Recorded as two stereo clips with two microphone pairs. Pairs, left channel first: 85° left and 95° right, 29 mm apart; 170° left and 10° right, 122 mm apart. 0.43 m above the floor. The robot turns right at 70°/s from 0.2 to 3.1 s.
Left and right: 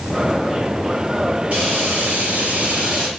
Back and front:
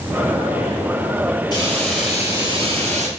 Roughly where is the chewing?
I don't hear chewing.